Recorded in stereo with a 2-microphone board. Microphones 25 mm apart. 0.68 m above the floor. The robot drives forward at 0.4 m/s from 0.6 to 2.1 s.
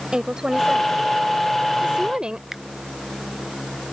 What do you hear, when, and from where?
0.1 s a woman speaking: 35° right (ahead or behind); by 2.4 s 40° right (ahead or behind)
2.5 s a finger snap: 15° right (ahead or behind)